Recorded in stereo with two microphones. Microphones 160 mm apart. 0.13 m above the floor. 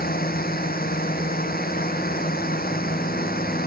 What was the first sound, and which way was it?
A drone, 80° left.